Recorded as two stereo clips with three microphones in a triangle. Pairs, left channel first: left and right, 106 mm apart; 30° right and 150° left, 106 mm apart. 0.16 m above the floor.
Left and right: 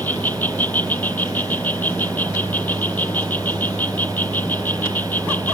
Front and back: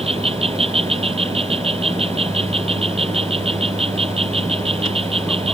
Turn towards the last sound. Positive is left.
turn(degrees=160)